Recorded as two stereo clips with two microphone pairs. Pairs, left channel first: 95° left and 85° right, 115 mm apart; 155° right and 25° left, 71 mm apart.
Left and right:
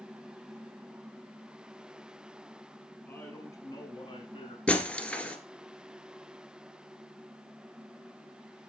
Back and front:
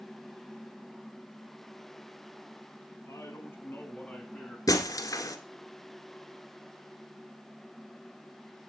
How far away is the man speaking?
About 3 m.